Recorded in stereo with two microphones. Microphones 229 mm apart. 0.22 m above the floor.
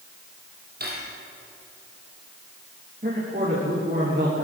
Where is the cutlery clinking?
45° right (ahead or behind), 4.5 m.